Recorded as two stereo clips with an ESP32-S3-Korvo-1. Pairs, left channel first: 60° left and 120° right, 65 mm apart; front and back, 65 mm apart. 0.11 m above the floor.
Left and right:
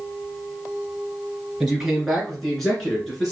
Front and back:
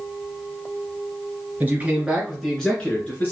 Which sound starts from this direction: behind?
A man speaking, at 1.6 s.